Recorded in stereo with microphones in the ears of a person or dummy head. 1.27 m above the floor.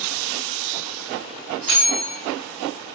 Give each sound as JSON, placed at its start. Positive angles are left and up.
{"t": 1.7, "sound": "a bell", "side_deg": -60, "distance_m": 0.7}